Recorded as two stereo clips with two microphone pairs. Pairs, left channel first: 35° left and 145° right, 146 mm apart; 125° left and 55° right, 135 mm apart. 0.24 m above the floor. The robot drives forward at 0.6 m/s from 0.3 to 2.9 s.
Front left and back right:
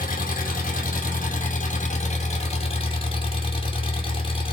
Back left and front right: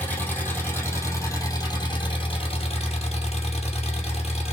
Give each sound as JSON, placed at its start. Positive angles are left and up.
{"t": 0.0, "sound": "an engine running", "azimuth_deg": 50, "distance_m": 2.5}